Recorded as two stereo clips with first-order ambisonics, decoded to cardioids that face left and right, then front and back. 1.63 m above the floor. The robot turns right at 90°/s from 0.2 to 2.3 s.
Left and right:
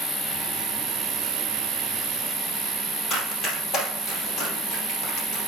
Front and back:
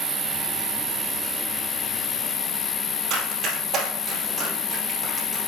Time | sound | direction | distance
0.0 | an insect | 160° left | 4.5 m
3.1 | running footsteps | 140° left | 3.5 m